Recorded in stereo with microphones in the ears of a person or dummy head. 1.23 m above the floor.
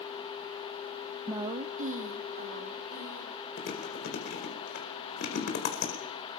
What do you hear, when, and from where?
1.3 s a woman speaking: 5° right (ahead or behind), 0.7 m; by 3.5 s 50° right (ahead or behind), 4 m
3.6 s chewing: 60° left (ahead or behind), 4 m